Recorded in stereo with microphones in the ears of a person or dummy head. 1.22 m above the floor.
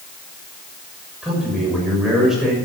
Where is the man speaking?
5° right (ahead or behind), 6.5 m.